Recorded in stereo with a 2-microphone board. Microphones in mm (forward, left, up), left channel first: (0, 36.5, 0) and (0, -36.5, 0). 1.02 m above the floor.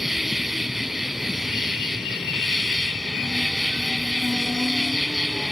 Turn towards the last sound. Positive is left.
turn(degrees=0)  # may be behind; listen again after turning